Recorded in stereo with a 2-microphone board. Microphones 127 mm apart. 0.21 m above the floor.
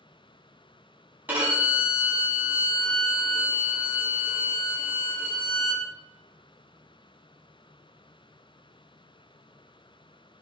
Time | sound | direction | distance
1.3 | a violin | 15° right (ahead or behind) | 1.3 m